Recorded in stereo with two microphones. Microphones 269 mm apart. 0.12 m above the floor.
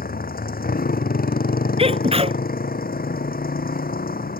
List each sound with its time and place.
0.0 s a motorcycle: 35° left (ahead or behind)
1.8 s a sneeze: 25° right (ahead or behind)